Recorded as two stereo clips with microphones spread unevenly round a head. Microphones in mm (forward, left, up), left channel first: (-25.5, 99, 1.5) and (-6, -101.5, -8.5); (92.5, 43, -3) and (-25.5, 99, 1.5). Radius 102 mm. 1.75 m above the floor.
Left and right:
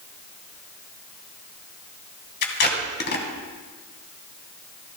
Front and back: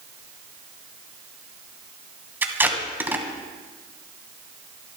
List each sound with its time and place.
2.4 s tape being pulled: 85° left, 2.5 m